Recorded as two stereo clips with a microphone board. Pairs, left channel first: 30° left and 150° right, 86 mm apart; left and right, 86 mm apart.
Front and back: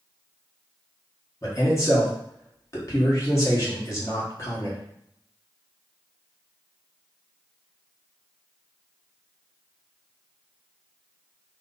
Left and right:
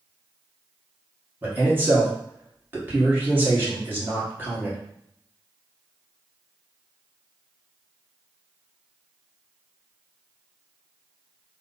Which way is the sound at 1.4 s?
25° right.